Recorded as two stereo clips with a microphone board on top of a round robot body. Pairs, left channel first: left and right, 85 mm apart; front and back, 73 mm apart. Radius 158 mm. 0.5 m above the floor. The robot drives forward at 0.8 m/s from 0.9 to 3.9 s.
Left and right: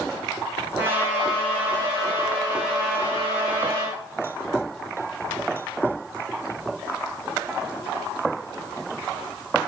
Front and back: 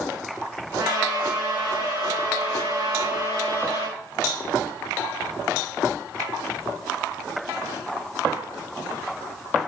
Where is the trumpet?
155° right, 7.5 m; by 4.0 s 160° right, 10 m.